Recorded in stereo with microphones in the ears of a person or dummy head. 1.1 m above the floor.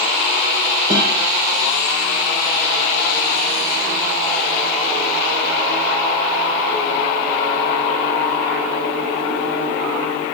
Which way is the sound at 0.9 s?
55° right (ahead or behind).